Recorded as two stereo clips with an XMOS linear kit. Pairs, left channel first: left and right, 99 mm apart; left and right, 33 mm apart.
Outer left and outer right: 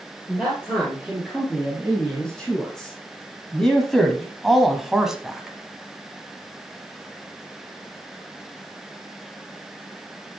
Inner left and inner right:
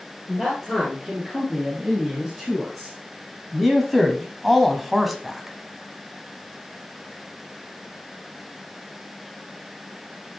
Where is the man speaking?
10° left (ahead or behind), 3.5 m; by 5.6 s 5° right (ahead or behind), 1.5 m.